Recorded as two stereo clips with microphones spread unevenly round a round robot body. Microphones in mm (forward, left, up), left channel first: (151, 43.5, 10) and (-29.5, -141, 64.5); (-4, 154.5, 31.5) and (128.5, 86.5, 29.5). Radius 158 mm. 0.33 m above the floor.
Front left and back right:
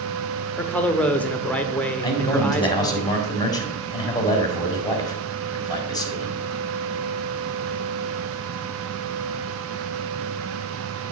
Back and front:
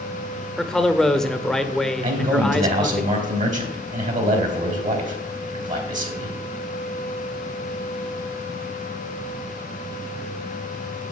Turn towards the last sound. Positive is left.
turn(degrees=-20)